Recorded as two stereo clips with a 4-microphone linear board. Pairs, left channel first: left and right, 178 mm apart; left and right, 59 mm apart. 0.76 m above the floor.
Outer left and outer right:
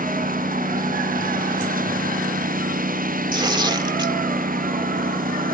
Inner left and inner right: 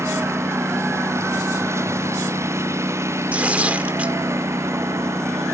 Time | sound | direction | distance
0.0 | a lawn mower | 50° right (ahead or behind) | ?
3.3 | tearing paper | 25° right (ahead or behind) | ?